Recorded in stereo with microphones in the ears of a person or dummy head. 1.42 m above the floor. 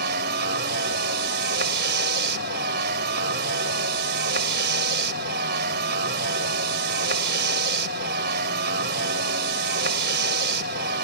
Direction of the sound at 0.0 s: 65° right (ahead or behind).